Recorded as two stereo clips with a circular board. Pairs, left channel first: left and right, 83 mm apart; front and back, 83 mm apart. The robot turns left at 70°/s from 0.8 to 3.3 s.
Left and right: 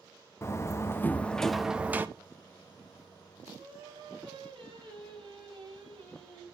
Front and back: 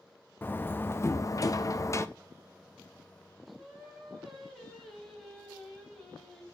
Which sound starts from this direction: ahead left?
A door slam, at 0.4 s.